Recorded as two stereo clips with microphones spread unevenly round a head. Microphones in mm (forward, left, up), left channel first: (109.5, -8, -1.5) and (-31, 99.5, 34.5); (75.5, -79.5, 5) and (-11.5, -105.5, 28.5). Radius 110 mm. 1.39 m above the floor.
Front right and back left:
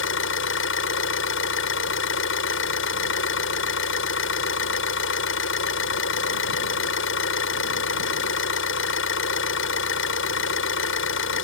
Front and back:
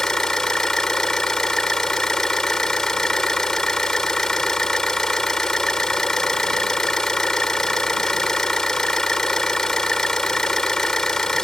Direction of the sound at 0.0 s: 70° right.